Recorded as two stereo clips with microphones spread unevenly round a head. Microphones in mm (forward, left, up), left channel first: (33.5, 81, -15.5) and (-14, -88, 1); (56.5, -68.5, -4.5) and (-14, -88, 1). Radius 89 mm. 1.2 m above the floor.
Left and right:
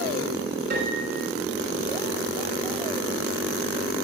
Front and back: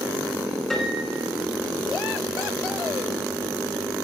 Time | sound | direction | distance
0.7 | a piano | 75° right | 5 m